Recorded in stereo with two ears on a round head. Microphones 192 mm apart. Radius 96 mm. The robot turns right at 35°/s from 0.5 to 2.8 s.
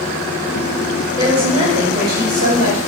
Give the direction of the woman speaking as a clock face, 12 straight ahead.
5 o'clock.